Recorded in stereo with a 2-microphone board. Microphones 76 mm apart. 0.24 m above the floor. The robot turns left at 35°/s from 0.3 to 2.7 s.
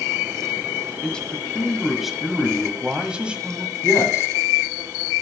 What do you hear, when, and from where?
1.0 s a man speaking: 15° left (ahead or behind), 1.2 m; by 3.7 s 15° right (ahead or behind), 1.2 m
3.8 s a man speaking: 40° left (ahead or behind), 2 m